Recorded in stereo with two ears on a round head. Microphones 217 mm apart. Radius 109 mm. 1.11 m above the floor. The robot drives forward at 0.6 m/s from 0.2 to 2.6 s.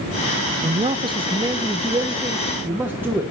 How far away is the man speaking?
About 0.6 m.